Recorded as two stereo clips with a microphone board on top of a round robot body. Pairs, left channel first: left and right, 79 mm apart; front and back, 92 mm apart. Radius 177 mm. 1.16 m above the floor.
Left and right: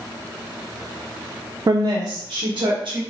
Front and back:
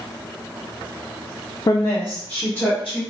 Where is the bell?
I don't hear a bell.